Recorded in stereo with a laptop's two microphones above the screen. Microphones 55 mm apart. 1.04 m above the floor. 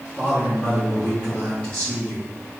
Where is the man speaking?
20° left (ahead or behind), 3 m.